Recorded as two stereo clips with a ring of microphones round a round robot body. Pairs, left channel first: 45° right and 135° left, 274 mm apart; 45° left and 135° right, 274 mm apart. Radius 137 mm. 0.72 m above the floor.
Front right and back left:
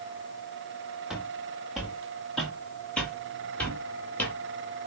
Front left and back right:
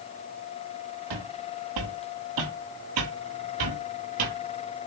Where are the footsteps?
135° right, 4.5 m; by 4.4 s 130° right, 6 m.